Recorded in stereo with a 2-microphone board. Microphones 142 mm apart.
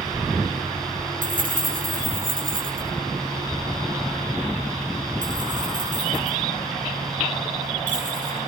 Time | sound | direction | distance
1.2 | keys jangling | 80° right | 7 m